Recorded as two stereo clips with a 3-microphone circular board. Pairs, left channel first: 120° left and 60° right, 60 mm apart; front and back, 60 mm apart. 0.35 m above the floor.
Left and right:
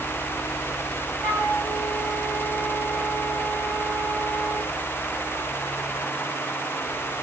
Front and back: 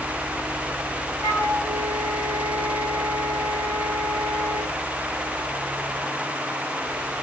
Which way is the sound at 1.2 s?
170° left.